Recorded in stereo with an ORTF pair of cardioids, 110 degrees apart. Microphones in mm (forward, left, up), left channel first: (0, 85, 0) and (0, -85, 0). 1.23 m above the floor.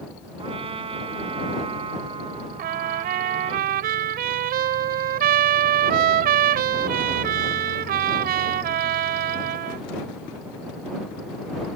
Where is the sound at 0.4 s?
35° right.